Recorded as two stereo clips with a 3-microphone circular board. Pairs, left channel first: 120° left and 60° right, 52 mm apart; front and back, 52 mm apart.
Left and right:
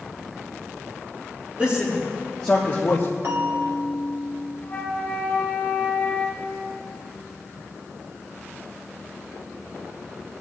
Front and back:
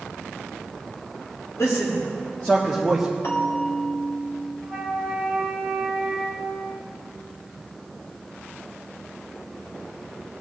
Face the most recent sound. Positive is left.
turn(degrees=65)